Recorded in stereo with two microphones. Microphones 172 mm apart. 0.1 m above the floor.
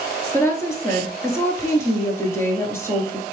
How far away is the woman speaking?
About 1.2 m.